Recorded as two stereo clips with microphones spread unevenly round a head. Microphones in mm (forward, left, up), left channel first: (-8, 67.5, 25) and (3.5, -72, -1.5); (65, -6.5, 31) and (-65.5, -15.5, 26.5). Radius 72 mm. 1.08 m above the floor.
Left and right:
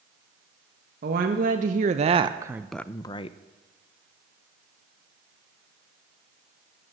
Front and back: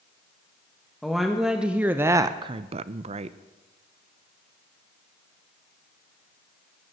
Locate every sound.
1.0 s a woman speaking: 85° right, 1.3 m; by 3.4 s 145° left, 0.8 m